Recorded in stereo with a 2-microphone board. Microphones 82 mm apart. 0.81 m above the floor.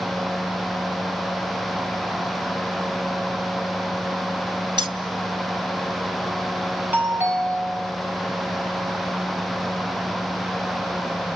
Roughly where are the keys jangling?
Right.